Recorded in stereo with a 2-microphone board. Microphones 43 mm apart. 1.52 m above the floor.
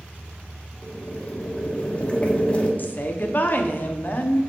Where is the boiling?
25° left (ahead or behind), 1.0 m.